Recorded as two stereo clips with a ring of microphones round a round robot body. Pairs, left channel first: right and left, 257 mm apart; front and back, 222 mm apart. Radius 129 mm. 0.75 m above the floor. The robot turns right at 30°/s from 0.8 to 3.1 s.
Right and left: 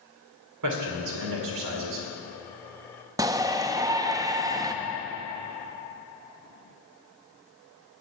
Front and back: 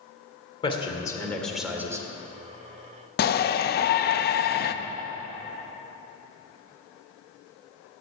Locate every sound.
0.6 s a man speaking: 70° left, 2 m; by 2.1 s 105° left, 2 m
3.2 s a shout: 20° left, 0.6 m